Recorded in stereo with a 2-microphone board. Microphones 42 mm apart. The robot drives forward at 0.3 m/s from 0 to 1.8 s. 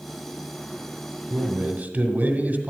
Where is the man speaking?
45° right (ahead or behind), 1.2 m; by 2.7 s 40° right (ahead or behind), 1.2 m.